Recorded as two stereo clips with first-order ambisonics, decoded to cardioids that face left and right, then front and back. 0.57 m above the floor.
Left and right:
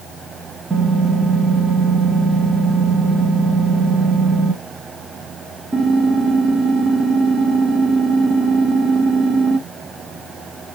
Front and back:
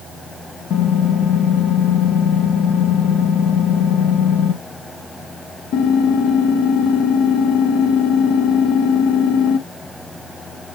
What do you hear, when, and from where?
0.7 s typing on a keyboard: 20° right, 0.6 m